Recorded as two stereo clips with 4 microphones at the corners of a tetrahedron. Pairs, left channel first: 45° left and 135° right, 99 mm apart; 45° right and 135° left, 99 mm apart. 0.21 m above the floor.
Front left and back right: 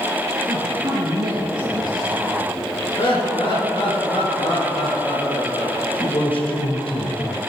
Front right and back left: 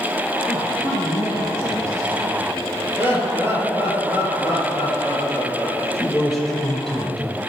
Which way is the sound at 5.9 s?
45° left.